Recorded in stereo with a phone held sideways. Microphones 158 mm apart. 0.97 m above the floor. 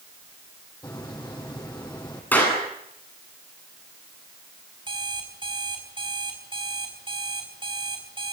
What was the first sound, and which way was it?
A hiss, 20° left (ahead or behind).